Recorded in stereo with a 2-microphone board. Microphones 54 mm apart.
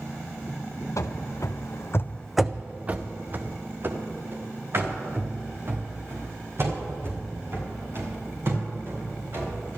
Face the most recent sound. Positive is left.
turn(degrees=-55)  # may be behind; listen again after turning